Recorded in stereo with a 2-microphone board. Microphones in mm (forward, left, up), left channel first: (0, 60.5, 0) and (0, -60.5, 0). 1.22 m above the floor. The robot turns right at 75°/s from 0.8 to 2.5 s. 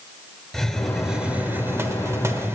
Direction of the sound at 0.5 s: 5° left (ahead or behind).